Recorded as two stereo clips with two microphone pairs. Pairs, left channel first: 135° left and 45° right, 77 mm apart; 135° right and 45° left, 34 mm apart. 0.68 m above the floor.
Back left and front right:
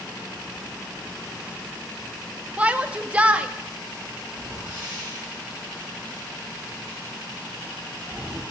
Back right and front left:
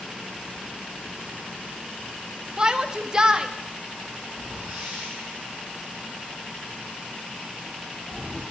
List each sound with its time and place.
2.6 s a shout: 15° left, 0.9 m
4.3 s a whoosh: 25° left, 9 m